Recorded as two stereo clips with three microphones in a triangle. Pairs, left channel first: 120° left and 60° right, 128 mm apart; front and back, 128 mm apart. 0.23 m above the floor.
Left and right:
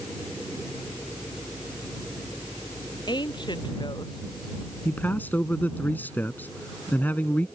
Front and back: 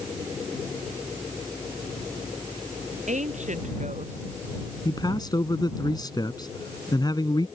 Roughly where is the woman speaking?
Behind.